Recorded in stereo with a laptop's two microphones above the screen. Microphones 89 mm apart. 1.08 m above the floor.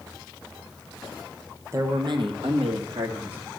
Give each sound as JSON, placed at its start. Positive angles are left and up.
{"t": 1.7, "sound": "a man speaking", "side_deg": -30, "distance_m": 0.8}